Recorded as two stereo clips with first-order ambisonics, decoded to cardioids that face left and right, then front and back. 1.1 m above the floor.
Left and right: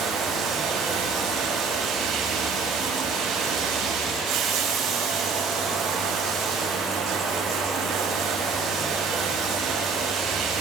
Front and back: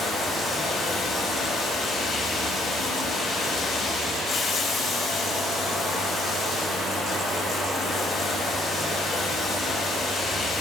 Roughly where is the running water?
Ahead right.